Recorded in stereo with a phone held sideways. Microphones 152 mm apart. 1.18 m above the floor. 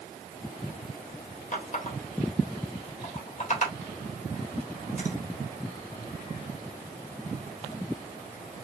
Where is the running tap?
50° left (ahead or behind), 1.4 m.